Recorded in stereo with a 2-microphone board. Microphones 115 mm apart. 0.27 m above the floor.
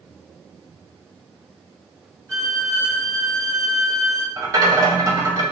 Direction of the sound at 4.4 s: 35° right (ahead or behind).